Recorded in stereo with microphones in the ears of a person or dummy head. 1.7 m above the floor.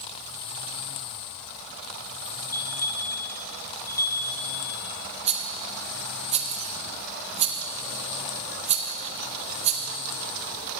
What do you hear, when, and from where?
2.5 s a bell: 20° left (ahead or behind), 1.3 m
5.3 s a rattle: 35° right (ahead or behind), 0.6 m